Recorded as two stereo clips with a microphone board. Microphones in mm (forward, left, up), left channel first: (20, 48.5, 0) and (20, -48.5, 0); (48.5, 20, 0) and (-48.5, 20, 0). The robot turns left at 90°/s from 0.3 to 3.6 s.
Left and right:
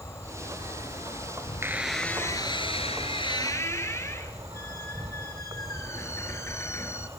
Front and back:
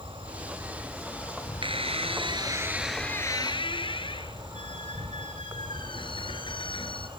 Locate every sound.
0.0 s an insect: 150° left, 2.5 m; by 7.2 s 145° right, 2.5 m
1.6 s a squeak: 150° right, 2.5 m; by 7.1 s 30° left, 2.5 m